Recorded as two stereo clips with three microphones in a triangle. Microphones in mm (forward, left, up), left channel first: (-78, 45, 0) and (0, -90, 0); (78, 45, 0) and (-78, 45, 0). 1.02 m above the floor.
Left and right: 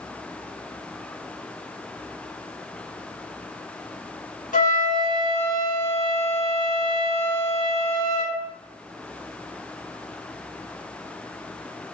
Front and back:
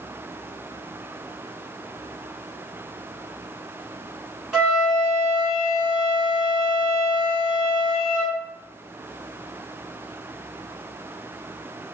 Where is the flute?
95° left, 1.1 m.